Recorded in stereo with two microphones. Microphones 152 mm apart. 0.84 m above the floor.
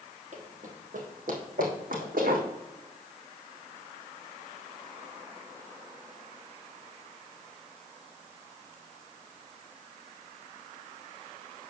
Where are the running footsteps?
55° right (ahead or behind), 1.7 m; by 2.5 s 75° right (ahead or behind), 3.5 m.